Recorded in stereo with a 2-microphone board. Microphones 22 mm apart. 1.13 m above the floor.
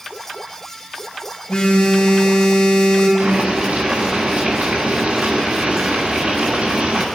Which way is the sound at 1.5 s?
55° left (ahead or behind).